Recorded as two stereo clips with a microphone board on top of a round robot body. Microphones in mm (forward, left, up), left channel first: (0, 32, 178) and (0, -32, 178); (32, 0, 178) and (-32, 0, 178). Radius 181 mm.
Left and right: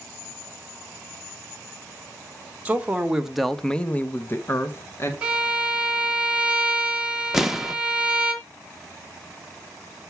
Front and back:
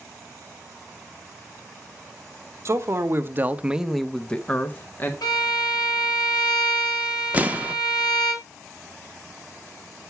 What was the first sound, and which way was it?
A man speaking, 155° right.